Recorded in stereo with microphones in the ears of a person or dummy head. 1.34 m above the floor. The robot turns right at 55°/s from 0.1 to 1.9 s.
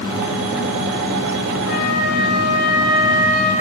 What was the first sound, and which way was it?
A flute, 50° left (ahead or behind).